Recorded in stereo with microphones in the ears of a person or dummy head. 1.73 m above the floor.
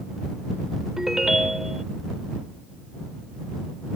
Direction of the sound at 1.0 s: Centre (ahead or behind).